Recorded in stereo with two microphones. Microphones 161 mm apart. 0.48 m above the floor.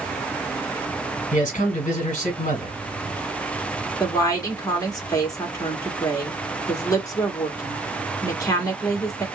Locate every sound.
1.3 s a man speaking: 50° left (ahead or behind), 1.6 m
4.0 s a woman speaking: 20° left (ahead or behind), 1.0 m